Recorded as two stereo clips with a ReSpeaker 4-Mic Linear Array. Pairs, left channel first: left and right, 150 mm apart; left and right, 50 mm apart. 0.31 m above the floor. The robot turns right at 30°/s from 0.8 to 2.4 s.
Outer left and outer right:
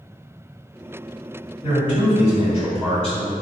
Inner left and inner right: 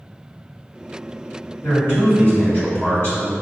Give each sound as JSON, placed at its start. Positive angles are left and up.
{"t": 1.6, "sound": "a man speaking", "side_deg": 50, "distance_m": 1.9}